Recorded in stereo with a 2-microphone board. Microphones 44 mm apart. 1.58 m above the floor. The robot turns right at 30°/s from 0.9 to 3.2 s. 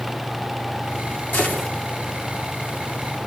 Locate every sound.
1.3 s a gunshot: 50° left (ahead or behind), 4.5 m; by 1.7 s 40° left (ahead or behind), 4.5 m